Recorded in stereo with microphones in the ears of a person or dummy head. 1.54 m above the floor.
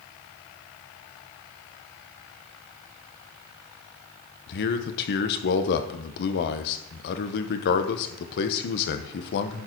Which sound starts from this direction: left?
A man speaking, at 4.5 s.